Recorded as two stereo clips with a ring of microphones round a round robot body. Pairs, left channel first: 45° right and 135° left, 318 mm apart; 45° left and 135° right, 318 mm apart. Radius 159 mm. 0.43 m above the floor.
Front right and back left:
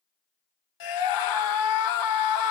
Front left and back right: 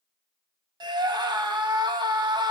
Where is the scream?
60° right, 3.5 m.